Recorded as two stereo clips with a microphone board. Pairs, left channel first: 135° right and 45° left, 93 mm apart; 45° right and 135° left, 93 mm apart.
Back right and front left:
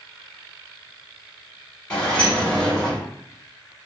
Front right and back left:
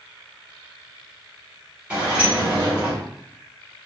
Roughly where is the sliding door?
Behind.